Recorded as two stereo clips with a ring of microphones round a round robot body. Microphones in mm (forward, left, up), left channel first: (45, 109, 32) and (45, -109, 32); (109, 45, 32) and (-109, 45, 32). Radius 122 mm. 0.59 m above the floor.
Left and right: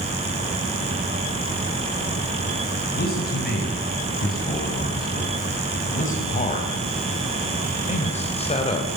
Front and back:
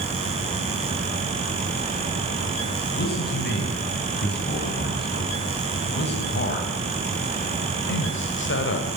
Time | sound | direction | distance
2.9 | a man speaking | 45° left | 6 m